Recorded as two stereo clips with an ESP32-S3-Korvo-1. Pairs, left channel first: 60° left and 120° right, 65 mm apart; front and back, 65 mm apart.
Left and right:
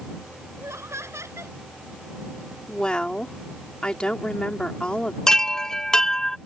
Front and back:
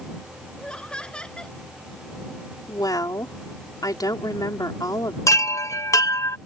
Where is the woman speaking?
15° right.